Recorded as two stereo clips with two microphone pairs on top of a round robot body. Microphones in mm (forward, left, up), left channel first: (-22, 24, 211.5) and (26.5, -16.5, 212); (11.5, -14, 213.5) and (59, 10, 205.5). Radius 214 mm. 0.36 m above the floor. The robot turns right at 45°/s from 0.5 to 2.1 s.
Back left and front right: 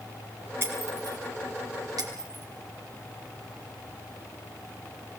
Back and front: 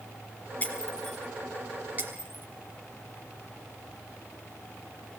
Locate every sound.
0.6 s breaking glass: 90° right, 5.5 m; by 2.5 s 25° right, 5.5 m